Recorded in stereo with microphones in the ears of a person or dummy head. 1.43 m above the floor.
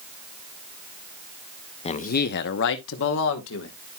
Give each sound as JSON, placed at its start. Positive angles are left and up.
{"t": 1.9, "sound": "a man speaking", "side_deg": 35, "distance_m": 0.6}